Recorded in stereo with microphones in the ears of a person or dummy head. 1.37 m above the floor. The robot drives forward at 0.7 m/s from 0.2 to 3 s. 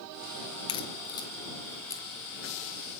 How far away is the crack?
About 1.6 m.